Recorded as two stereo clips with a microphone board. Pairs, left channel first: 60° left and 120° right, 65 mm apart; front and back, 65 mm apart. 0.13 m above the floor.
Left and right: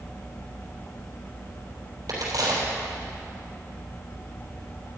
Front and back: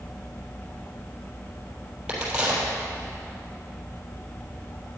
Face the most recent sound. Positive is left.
turn(degrees=-105)